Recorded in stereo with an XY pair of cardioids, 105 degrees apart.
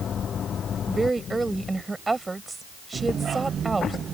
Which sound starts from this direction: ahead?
A woman speaking, at 0.9 s.